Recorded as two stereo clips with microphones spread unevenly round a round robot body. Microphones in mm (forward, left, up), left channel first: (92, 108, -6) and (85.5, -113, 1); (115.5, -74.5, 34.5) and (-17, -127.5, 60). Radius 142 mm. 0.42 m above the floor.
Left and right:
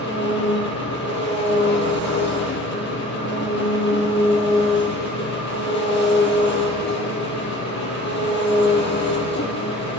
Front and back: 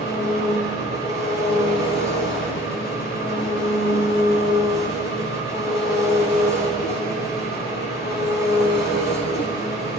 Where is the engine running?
50° left, 3.5 m.